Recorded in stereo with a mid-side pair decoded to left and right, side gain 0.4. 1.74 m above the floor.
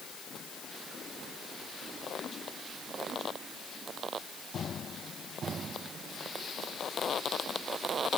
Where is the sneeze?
No sneeze in this recording.